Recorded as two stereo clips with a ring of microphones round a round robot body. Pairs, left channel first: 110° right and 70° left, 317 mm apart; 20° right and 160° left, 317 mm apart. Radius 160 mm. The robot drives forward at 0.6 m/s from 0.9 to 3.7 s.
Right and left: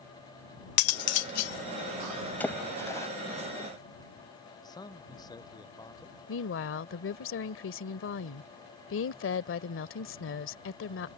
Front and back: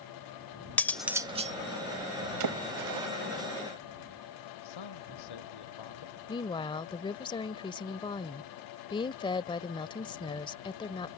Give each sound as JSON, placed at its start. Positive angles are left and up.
{"t": 0.8, "sound": "cutlery clinking", "azimuth_deg": -105}
{"t": 2.4, "sound": "a splash", "azimuth_deg": 165}
{"t": 4.6, "sound": "a man speaking", "azimuth_deg": -35}
{"t": 6.3, "sound": "a woman speaking", "azimuth_deg": -90}